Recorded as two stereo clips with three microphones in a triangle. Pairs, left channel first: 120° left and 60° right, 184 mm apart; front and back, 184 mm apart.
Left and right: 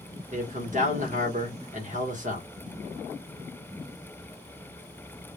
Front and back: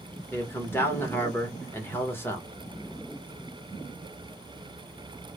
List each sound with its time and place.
0.3 s a man speaking: 75° right, 0.9 m